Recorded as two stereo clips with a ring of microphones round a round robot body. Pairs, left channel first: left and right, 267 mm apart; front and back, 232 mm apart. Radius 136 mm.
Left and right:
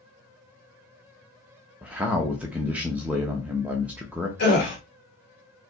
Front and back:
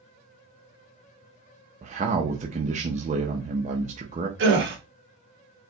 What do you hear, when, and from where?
1.8 s a man speaking: 170° right, 0.9 m
4.4 s a gasp: 145° left, 2 m